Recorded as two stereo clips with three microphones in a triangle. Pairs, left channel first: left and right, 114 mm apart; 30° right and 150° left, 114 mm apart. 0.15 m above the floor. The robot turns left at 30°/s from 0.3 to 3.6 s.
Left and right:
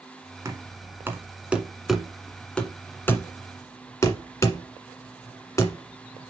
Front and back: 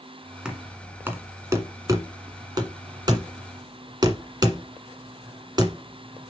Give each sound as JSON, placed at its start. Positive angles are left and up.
{"t": 0.5, "sound": "knocking", "azimuth_deg": -130, "distance_m": 1.4}